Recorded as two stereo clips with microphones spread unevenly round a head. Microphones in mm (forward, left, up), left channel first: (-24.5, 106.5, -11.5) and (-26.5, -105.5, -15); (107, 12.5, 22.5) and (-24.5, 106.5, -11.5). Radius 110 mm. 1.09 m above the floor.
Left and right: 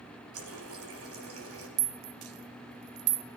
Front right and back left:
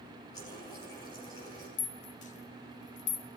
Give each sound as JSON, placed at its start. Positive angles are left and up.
{"t": 0.3, "sound": "a running tap", "azimuth_deg": -110, "distance_m": 4.5}
{"t": 1.8, "sound": "a rattle", "azimuth_deg": -80, "distance_m": 1.0}